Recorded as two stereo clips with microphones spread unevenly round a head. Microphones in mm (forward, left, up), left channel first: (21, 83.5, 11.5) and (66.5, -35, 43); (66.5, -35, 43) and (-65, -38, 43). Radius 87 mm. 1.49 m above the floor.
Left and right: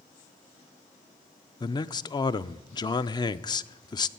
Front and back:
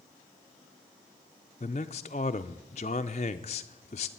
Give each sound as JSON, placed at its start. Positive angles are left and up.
{"t": 1.6, "sound": "a man speaking", "azimuth_deg": 50, "distance_m": 0.5}